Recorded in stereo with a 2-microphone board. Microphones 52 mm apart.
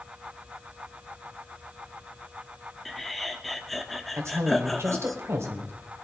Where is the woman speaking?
70° right (ahead or behind), 2.0 m.